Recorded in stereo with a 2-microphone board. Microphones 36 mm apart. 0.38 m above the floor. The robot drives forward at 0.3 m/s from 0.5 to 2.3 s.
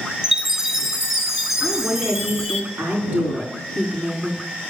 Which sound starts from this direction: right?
A woman speaking, at 1.6 s.